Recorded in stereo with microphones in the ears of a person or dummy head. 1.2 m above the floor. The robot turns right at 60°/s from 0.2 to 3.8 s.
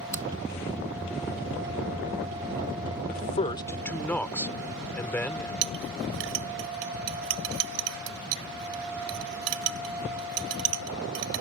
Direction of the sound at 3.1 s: 50° left (ahead or behind).